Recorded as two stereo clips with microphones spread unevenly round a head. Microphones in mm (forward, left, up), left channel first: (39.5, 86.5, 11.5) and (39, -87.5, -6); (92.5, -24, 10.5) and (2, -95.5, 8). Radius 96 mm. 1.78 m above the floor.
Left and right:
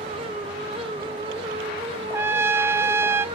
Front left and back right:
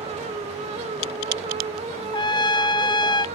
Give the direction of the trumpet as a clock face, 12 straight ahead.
12 o'clock.